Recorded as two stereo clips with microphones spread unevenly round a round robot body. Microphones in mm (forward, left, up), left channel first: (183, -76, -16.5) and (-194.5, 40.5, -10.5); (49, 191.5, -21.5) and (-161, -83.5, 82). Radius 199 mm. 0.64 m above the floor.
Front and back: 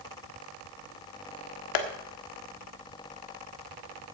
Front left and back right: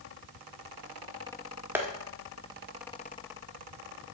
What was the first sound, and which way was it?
Tapping, 30° right.